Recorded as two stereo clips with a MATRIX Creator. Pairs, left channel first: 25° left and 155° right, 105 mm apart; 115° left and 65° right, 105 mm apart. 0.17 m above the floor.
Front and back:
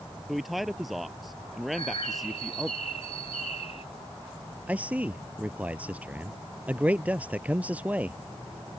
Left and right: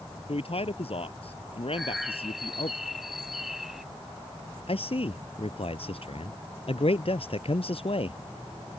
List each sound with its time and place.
0.3 s a man speaking: 115° left
1.7 s a bird: 20° left
4.7 s a man speaking: 125° left